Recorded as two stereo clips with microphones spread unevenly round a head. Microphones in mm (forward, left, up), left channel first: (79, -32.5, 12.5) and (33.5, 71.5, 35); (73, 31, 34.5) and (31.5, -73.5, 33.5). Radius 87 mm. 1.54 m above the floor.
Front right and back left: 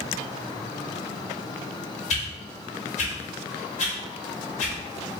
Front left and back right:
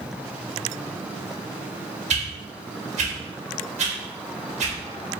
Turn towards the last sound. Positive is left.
turn(degrees=-100)